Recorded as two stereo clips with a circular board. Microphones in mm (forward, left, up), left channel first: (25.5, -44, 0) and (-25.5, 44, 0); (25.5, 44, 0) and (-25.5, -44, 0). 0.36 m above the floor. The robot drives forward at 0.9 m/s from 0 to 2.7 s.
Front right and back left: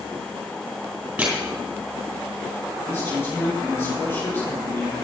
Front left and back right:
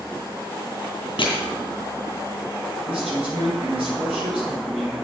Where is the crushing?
45° left, 3.5 m; by 1.4 s 50° left, 3.5 m.